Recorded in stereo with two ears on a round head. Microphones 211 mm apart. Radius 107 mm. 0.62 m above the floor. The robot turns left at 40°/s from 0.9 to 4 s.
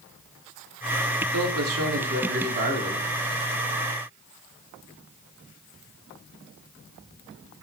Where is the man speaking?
85° right, 3 m; by 3.1 s 155° right, 3 m.